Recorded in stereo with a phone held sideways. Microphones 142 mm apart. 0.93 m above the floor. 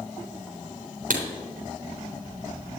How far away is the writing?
About 3.5 m.